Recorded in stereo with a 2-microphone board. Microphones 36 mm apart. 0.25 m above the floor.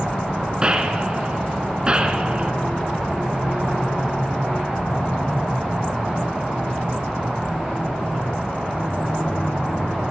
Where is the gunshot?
25° right (ahead or behind), 3.5 m.